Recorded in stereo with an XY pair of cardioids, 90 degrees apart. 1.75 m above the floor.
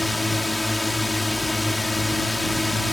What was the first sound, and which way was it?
A drone, 15° left.